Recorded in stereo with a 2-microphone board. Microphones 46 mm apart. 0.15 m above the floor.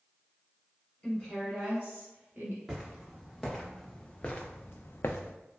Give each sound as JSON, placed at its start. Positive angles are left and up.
{"t": 1.0, "sound": "a woman speaking", "side_deg": 20, "distance_m": 1.3}
{"t": 2.7, "sound": "footsteps", "side_deg": -5, "distance_m": 1.4}